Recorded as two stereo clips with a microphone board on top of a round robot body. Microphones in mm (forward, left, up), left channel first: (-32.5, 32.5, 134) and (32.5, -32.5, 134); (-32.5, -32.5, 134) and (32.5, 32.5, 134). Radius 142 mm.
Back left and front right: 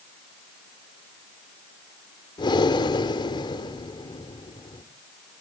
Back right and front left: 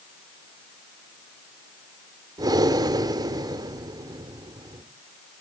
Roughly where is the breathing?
Left.